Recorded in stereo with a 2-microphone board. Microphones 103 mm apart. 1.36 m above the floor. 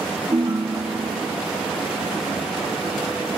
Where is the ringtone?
50° right (ahead or behind), 1.0 m.